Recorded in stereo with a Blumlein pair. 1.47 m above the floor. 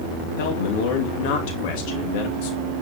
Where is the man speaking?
45° left, 2.5 m.